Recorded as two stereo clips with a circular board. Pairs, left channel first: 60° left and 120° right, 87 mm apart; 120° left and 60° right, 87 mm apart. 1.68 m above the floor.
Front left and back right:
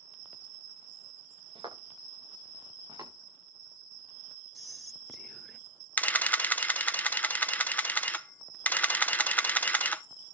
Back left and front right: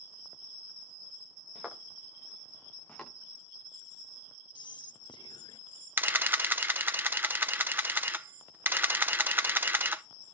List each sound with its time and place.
1.6 s footsteps: 145° right, 8 m; by 3.1 s 160° right, 8 m
4.5 s whispering: 150° left, 0.5 m
6.0 s a camera shutter: 5° right, 0.7 m